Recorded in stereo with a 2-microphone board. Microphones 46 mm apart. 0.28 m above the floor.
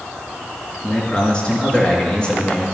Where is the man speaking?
20° left (ahead or behind), 4.5 m.